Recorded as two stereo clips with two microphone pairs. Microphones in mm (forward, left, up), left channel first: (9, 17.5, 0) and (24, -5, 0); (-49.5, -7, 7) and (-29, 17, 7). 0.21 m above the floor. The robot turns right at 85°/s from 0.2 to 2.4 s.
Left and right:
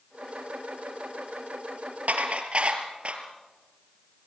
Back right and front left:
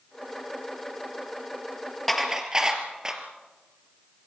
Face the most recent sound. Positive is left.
turn(degrees=-20)